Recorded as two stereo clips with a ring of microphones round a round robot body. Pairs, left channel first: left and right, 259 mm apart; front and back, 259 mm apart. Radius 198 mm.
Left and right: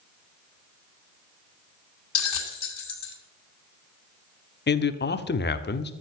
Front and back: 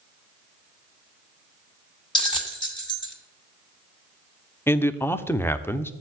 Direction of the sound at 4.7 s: 80° left.